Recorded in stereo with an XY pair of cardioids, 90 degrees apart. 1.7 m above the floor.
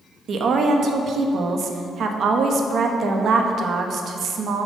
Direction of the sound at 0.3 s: 65° right.